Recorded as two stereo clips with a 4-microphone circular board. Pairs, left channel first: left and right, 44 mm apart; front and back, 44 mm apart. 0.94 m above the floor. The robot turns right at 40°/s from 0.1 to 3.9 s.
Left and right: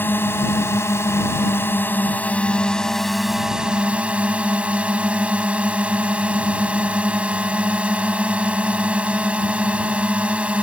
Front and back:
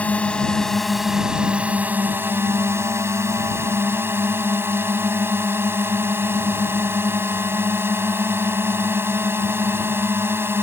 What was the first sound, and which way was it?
A drone, 55° left.